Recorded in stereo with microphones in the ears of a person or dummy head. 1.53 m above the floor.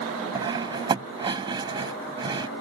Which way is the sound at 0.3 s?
30° right (ahead or behind).